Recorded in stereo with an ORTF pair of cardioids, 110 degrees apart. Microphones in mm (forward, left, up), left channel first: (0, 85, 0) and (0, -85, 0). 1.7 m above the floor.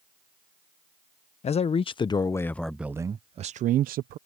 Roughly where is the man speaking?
Ahead left.